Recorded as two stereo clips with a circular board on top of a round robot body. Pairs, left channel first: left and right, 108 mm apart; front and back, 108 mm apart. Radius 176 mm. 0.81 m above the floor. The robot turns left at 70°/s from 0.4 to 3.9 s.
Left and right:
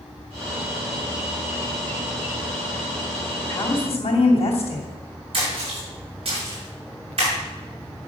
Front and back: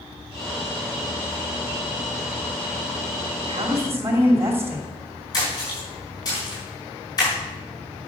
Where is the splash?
55° right, 6 m.